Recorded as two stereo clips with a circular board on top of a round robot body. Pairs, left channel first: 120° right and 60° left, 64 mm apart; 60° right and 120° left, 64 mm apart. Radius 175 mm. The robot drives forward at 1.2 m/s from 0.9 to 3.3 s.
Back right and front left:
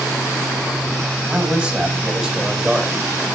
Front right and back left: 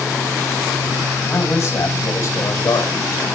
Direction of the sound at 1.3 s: 10° right.